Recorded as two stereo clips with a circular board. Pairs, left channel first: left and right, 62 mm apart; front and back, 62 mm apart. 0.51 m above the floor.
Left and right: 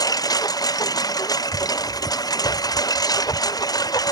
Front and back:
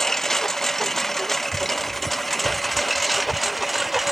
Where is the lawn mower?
85° left; by 4.1 s 90° left.